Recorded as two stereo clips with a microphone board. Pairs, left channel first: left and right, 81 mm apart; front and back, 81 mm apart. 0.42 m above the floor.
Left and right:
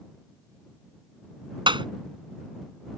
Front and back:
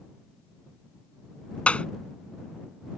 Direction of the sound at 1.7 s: 75° right.